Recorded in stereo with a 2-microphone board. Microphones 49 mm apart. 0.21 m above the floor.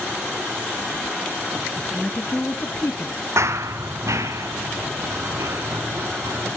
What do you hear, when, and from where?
1.8 s a woman speaking: 5° right (ahead or behind), 1.1 m; by 3.2 s 55° left (ahead or behind), 2 m
3.4 s running footsteps: 70° right (ahead or behind), 0.6 m; by 6.6 s 85° right, 5.5 m